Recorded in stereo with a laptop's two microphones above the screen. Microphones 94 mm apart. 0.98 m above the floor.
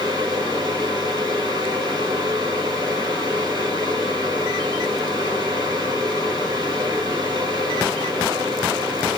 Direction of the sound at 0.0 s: 50° right (ahead or behind).